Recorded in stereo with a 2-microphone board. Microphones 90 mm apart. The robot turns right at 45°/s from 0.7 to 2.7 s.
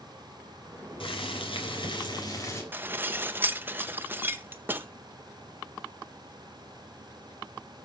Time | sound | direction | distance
1.0 | boiling | 75° left | 3.5 m
2.7 | dishes clattering | 20° right (ahead or behind) | 0.8 m